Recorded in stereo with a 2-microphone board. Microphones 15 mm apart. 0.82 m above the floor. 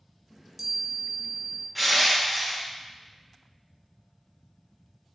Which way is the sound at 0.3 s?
30° right (ahead or behind).